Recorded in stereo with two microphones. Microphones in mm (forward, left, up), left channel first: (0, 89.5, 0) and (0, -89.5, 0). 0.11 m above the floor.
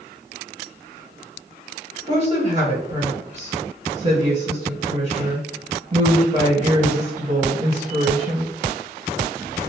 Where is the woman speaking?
40° right (ahead or behind), 1.7 m.